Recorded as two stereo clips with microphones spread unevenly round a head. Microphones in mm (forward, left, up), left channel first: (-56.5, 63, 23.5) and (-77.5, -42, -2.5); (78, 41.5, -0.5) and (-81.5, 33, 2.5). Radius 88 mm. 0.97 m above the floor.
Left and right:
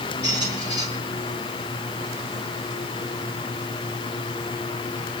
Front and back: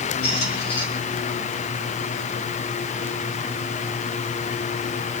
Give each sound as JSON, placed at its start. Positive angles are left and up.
{"t": 0.2, "sound": "a squeak", "azimuth_deg": 20, "distance_m": 6.0}